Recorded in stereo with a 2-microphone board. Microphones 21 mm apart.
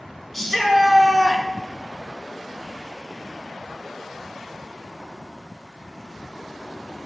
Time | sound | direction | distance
0.3 | a shout | 5° left (ahead or behind) | 2.5 m